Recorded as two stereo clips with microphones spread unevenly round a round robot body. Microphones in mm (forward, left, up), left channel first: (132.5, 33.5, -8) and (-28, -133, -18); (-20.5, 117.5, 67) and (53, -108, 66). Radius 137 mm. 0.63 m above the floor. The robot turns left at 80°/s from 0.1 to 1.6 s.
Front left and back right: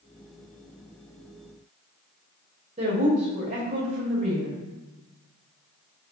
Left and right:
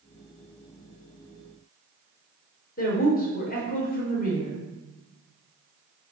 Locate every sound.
2.8 s a woman speaking: 160° left, 2.5 m